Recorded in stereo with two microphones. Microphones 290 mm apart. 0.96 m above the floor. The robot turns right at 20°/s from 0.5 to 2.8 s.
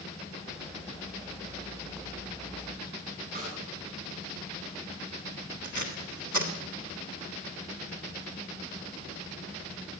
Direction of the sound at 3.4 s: 30° right (ahead or behind).